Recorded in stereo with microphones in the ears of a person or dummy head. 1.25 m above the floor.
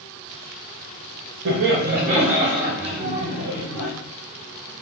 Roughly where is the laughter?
Right.